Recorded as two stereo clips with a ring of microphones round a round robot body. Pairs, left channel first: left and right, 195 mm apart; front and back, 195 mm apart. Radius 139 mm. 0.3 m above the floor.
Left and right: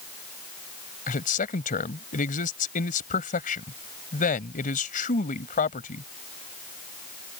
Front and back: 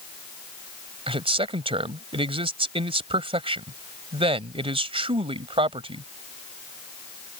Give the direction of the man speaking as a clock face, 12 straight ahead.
8 o'clock.